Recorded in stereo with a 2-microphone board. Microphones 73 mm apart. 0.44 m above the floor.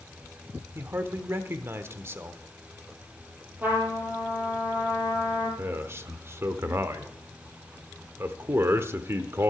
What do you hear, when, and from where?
0.8 s a man speaking: 35° right (ahead or behind), 1.0 m
3.6 s a trumpet: 25° right (ahead or behind), 5.5 m
5.6 s a man speaking: 35° right (ahead or behind), 1.1 m